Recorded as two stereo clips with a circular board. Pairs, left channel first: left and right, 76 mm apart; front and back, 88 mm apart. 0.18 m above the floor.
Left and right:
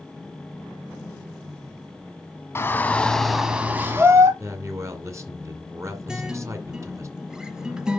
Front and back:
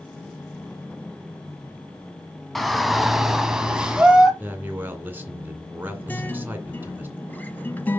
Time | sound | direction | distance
2.5 | a shout | 90° left | 1.3 m
4.4 | a man speaking | 120° right | 2 m
6.1 | a guitar | 25° right | 0.9 m